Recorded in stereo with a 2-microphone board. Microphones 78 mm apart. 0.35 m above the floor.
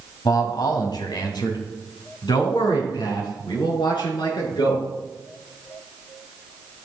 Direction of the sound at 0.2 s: 55° left (ahead or behind).